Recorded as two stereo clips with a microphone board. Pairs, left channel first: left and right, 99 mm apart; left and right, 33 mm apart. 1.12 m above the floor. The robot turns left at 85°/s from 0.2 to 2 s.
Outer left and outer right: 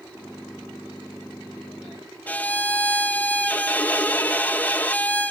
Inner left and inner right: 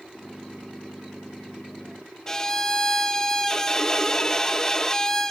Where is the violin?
15° left (ahead or behind), 1.1 m.